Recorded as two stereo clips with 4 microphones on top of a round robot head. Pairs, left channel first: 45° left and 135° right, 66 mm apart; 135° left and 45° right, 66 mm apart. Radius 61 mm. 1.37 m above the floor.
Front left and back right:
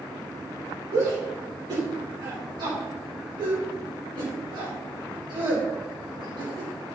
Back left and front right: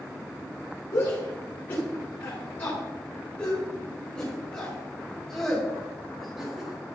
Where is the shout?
170° right, 5 m; by 7.0 s 125° right, 4 m.